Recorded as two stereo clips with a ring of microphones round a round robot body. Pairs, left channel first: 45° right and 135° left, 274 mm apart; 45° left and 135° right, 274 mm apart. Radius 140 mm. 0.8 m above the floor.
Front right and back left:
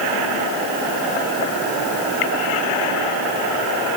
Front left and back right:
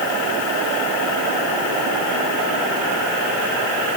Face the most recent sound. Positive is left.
No sound to turn to.